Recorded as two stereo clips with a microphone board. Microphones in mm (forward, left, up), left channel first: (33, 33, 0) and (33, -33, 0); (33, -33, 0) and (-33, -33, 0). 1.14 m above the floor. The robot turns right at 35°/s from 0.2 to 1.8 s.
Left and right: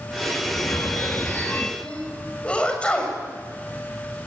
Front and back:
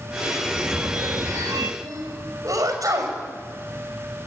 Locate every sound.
0.5 s a phone ringing: 115° left, 1.1 m; by 1.7 s 160° left, 1.1 m
1.8 s a sneeze: 160° left, 7 m